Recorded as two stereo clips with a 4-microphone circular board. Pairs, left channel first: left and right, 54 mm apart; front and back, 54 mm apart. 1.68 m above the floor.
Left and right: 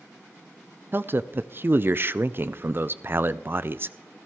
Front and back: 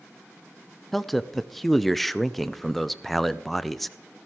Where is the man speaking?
85° right, 0.5 m.